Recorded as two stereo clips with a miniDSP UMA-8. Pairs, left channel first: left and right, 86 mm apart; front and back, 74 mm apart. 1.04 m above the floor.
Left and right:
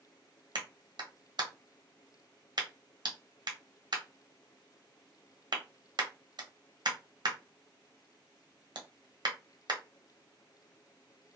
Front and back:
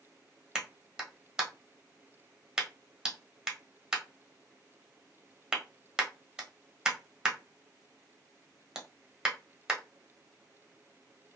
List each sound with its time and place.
0.6 s a clap: 100° right, 0.8 m